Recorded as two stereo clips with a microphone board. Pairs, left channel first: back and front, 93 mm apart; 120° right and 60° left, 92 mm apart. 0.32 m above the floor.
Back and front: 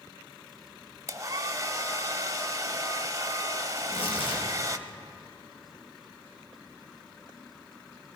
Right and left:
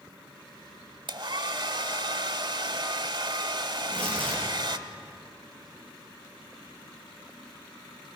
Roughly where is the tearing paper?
Behind.